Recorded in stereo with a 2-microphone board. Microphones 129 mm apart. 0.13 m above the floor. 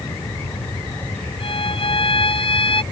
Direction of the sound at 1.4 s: 40° left (ahead or behind).